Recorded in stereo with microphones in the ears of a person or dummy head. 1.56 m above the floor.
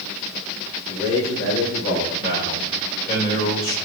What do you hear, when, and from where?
0.9 s a man speaking: 60° left (ahead or behind), 6 m
2.2 s a man speaking: 50° left (ahead or behind), 6.5 m